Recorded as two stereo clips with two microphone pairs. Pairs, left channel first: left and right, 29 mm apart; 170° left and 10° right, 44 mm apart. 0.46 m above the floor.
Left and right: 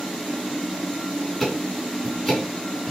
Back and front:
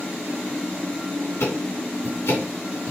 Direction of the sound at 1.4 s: 170° left.